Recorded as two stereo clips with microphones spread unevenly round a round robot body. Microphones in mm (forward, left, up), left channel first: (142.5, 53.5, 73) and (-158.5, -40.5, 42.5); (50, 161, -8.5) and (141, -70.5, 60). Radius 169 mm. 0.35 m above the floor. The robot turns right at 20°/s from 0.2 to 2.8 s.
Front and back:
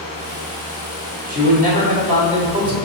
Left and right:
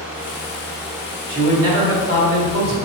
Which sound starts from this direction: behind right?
A man speaking, at 1.3 s.